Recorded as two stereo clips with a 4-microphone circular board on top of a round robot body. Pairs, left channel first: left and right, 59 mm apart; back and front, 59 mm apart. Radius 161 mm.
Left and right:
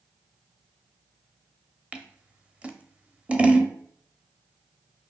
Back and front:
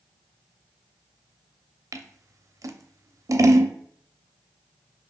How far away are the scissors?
About 0.6 m.